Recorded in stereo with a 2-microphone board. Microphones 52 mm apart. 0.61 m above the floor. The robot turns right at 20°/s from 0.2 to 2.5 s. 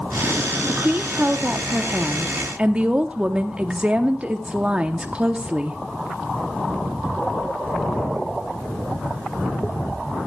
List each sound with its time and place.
0.7 s a woman speaking: 75° right, 0.9 m; by 5.8 s 40° right, 0.9 m